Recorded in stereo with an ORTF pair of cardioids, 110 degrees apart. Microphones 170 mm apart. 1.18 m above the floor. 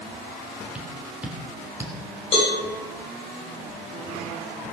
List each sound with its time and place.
0.8 s tapping: 5° right, 3 m
2.3 s a cowbell: 35° left, 8 m